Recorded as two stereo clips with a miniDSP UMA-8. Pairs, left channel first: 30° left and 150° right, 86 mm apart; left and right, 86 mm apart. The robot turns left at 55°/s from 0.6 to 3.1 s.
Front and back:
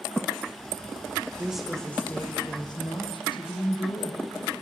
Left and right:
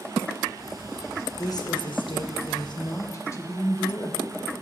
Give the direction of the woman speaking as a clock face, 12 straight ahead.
8 o'clock.